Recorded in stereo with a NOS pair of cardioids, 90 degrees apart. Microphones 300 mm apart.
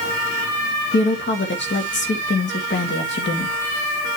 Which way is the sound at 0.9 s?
40° left.